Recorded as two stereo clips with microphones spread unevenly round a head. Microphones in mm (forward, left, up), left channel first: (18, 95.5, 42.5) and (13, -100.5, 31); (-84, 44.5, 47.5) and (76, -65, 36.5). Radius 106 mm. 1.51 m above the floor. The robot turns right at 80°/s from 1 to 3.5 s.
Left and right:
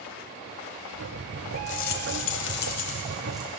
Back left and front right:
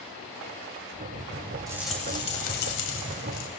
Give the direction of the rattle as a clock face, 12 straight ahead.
11 o'clock.